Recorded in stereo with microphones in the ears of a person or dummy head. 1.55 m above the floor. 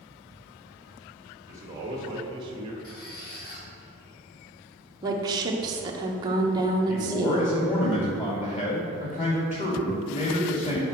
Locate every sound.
1.5 s a man speaking: 15° right (ahead or behind), 2.5 m; by 2.7 s 35° right (ahead or behind), 1.8 m
2.8 s a squeak: 50° left (ahead or behind), 1.9 m
5.0 s a woman speaking: 25° right (ahead or behind), 1.2 m
6.9 s a man speaking: 30° left (ahead or behind), 2.5 m